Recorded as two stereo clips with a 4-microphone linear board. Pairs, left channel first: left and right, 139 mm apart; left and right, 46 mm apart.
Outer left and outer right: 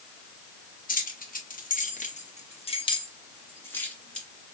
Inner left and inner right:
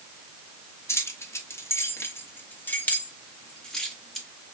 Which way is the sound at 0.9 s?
85° left.